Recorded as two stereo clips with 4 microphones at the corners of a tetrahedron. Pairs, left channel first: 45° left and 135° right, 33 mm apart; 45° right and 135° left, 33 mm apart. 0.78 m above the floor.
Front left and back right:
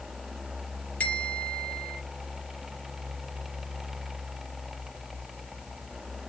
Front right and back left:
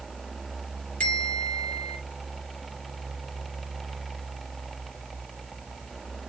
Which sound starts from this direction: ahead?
A bell, at 1.0 s.